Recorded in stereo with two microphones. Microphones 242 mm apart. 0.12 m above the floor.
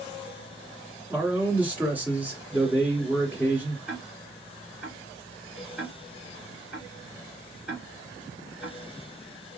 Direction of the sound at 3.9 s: 5° right (ahead or behind).